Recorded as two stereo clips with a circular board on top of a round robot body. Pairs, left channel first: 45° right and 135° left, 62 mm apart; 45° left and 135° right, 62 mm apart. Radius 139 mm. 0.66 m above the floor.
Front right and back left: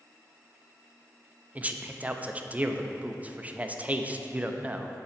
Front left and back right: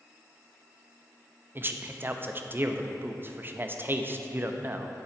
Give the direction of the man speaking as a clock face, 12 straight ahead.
6 o'clock.